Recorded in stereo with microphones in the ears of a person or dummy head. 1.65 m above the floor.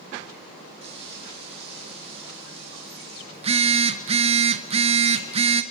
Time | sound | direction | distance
0.8 | frying | 35° right (ahead or behind) | 4 m
3.3 | a phone buzzing | 35° right (ahead or behind) | 0.9 m